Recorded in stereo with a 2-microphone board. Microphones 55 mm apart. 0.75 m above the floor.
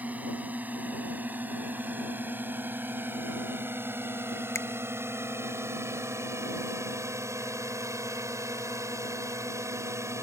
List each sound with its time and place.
0.0 s a drone: 30° right (ahead or behind); by 10.2 s 65° right (ahead or behind)
4.5 s a finger snap: 55° left (ahead or behind)